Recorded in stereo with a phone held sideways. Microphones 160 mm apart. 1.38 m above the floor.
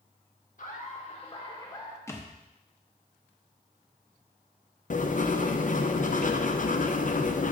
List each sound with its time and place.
0.6 s laughter: 55° left (ahead or behind), 1.4 m; by 2.0 s 20° left (ahead or behind), 1.4 m
2.1 s a thud: 15° left (ahead or behind), 0.8 m
4.9 s writing: 55° left (ahead or behind), 0.5 m